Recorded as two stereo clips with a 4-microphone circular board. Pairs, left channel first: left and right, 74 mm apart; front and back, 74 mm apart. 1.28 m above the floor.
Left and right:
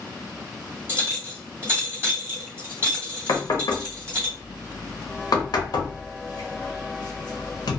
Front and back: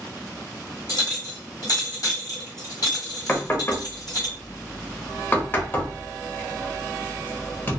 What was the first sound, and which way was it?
A clink, 35° right.